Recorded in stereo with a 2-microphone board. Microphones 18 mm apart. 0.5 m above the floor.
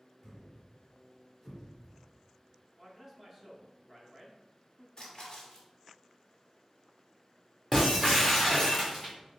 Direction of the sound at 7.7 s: 5° left (ahead or behind).